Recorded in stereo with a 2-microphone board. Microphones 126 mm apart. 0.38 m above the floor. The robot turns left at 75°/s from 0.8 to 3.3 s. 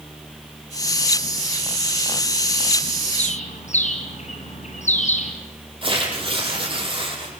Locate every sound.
3.2 s a bird: 60° left (ahead or behind), 4.5 m; by 5.3 s 70° left (ahead or behind), 4.5 m
5.8 s tearing paper: 45° right (ahead or behind), 6 m